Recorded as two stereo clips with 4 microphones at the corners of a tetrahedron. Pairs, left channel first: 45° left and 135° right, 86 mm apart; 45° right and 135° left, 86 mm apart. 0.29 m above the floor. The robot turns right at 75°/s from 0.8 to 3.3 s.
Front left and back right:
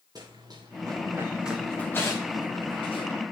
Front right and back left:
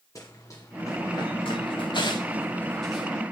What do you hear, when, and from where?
0.1 s running footsteps: 95° right, 3 m; by 3.1 s 60° left, 4.5 m